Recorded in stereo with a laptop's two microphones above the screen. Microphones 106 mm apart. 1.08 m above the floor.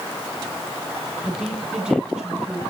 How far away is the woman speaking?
About 9 m.